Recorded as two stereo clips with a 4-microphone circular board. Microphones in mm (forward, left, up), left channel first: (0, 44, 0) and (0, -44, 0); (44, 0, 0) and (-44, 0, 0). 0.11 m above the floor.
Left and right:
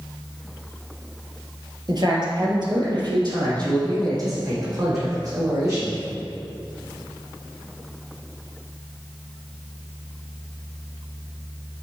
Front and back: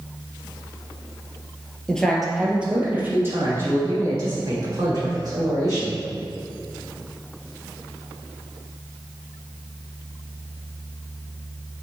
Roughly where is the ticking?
I don't hear ticking.